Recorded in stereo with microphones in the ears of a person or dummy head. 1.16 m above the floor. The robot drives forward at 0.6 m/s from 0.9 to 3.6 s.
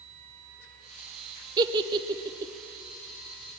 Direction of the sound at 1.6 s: 20° right (ahead or behind).